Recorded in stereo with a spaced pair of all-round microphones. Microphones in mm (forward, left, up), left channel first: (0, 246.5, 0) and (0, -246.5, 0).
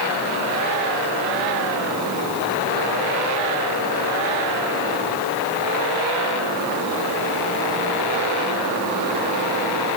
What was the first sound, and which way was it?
Only background noise.